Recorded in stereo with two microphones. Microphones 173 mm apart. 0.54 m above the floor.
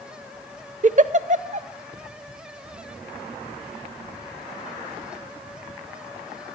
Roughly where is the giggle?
Right.